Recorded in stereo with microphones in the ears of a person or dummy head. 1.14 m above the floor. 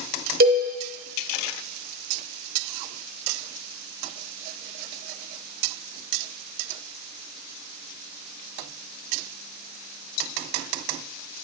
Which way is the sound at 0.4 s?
45° right (ahead or behind).